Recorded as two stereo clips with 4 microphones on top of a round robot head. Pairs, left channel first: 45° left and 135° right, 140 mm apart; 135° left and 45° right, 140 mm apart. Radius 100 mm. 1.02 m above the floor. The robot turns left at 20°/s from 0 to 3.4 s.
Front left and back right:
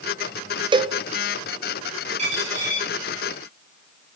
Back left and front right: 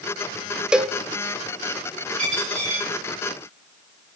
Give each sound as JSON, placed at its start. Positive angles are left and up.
{"t": 0.7, "sound": "a cowbell", "azimuth_deg": -125, "distance_m": 0.5}
{"t": 2.2, "sound": "a dropped coin", "azimuth_deg": -95, "distance_m": 5.0}